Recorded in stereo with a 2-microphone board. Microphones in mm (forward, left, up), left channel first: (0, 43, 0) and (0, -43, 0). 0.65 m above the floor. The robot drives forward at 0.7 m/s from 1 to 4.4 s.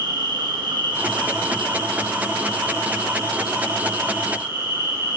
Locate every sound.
0.0 s an insect: 65° right (ahead or behind), 1.1 m; by 5.2 s 25° right (ahead or behind), 2.5 m